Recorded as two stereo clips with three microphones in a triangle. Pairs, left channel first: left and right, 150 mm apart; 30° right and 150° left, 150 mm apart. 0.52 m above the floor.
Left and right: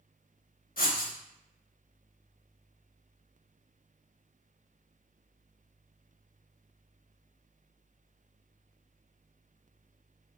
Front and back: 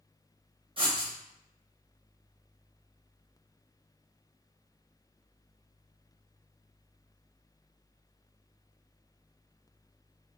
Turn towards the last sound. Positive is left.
turn(degrees=100)